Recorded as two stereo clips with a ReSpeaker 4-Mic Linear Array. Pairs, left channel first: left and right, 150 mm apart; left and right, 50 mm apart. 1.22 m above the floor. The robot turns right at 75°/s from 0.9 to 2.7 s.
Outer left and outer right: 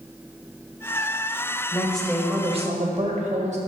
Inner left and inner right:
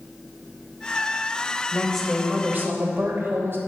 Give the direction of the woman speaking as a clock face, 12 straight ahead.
7 o'clock.